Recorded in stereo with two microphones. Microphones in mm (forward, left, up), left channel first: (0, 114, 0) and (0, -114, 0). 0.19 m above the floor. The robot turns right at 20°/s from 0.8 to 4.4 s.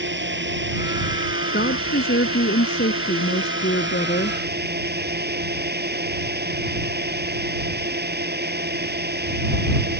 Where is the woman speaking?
70° left; by 4.4 s 125° left.